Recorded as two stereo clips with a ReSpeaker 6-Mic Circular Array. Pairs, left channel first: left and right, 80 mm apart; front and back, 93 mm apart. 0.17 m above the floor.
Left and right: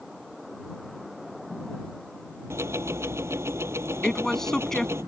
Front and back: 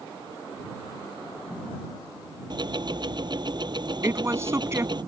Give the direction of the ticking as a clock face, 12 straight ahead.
5 o'clock.